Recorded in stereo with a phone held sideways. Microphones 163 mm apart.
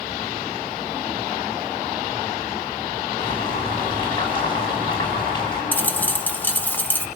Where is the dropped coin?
10° left (ahead or behind), 0.8 m.